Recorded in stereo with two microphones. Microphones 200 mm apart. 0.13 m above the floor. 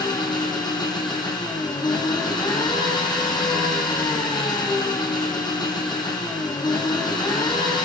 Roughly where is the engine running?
Left.